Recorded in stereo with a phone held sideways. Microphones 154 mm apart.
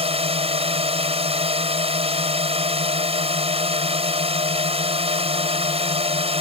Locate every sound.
0.0 s a drone: 40° right (ahead or behind)